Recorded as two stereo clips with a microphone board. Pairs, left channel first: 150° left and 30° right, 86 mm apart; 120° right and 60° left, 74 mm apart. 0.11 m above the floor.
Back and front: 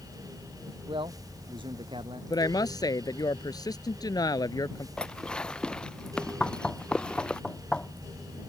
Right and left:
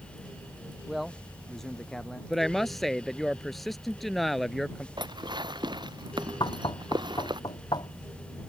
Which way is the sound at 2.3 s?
150° left.